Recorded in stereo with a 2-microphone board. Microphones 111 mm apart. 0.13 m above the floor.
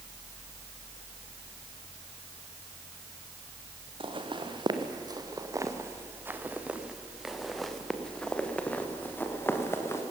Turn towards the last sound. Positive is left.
turn(degrees=25)  # may be behind; listen again after turning